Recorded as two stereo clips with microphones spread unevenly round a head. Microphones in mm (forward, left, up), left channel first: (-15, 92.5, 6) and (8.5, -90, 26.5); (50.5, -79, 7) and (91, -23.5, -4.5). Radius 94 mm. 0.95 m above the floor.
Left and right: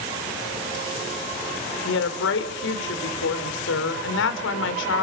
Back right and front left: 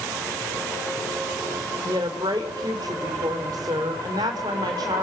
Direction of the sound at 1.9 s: 105° left.